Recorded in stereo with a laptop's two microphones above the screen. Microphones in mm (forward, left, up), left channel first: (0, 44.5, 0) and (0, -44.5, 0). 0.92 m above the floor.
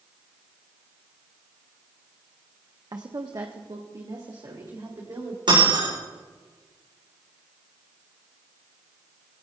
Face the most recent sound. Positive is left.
turn(degrees=-60)  # may be behind; listen again after turning